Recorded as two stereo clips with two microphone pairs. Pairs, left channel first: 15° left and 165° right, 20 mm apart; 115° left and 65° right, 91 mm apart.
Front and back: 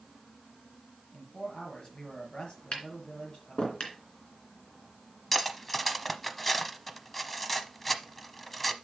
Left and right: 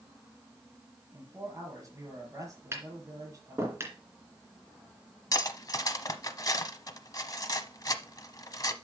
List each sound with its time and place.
1.1 s a man speaking: 15° right, 5.5 m
2.7 s tapping: 5° right, 2.5 m
5.3 s cutlery clinking: 95° left, 0.8 m